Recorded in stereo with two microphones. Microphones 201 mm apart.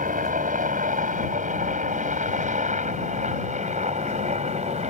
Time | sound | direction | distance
0.0 | a helicopter | 40° right (ahead or behind) | ?